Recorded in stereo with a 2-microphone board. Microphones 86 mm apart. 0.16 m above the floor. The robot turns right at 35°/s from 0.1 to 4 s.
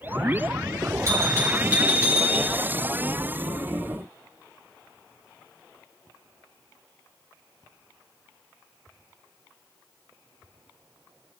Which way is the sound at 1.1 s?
45° right.